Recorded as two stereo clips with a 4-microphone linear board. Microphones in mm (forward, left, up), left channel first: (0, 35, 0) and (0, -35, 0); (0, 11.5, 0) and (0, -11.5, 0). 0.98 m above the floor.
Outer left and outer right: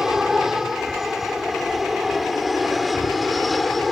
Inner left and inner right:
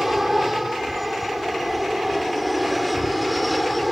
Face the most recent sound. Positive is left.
turn(degrees=0)  # may be behind; listen again after turning